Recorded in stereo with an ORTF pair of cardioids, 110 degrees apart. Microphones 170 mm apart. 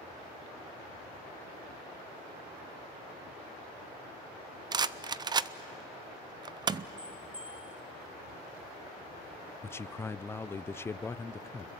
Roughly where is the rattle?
Ahead right.